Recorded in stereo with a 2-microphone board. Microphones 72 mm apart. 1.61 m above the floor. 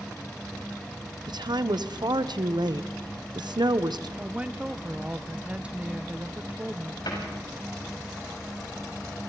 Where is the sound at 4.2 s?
15° right (ahead or behind), 0.8 m.